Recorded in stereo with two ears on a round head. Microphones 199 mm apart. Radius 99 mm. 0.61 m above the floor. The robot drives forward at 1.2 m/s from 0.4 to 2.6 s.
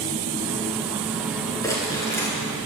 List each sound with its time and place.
1.6 s crumpling: 15° left (ahead or behind), 4.5 m